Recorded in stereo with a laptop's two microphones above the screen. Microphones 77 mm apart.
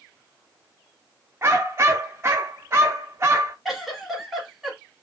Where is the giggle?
Centre (ahead or behind), 1.0 m.